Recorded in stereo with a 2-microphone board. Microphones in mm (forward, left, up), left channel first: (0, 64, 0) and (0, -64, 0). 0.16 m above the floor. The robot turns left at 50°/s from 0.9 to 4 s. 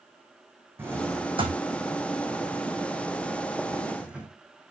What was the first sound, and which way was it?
A drawer, 20° right (ahead or behind).